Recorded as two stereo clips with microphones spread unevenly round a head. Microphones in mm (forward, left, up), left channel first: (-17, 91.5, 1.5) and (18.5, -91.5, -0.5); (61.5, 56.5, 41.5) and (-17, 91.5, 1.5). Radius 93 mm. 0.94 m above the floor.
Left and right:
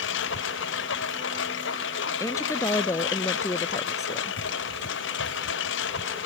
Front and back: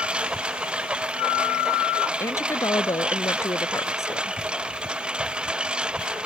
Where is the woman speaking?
25° left.